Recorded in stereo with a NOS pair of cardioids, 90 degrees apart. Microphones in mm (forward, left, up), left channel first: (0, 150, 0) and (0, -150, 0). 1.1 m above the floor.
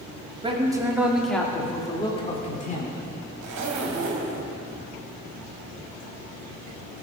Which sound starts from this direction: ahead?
A man speaking, at 0.4 s.